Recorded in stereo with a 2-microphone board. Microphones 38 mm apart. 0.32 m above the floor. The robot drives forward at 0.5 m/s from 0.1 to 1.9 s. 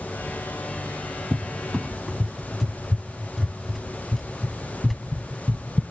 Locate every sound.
1.3 s a cupboard door: 10° left (ahead or behind), 0.6 m; by 5.8 s 5° left (ahead or behind), 0.9 m